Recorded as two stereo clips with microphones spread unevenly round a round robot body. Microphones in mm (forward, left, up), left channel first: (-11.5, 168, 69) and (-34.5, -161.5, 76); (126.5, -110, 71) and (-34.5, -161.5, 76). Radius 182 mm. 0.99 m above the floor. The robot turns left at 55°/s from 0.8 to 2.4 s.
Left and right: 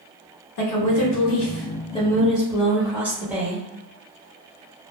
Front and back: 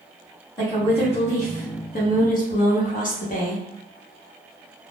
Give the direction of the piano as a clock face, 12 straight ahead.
No piano in this recording.